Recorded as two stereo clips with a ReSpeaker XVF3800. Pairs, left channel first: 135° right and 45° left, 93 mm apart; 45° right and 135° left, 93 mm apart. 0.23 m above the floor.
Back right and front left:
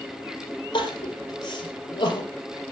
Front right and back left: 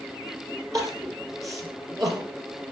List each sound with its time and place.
0.7 s crying: 170° right, 5 m